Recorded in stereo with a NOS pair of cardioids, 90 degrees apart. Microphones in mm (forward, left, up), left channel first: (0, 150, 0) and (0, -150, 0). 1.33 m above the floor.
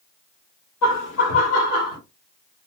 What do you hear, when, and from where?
0.8 s laughter: 70° left, 1.0 m; by 2.0 s 50° left, 2 m